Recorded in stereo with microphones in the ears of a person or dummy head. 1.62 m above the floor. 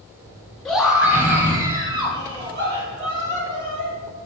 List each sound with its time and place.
0.7 s a scream: centre (ahead or behind), 1.6 m; by 3.9 s 40° right (ahead or behind), 4 m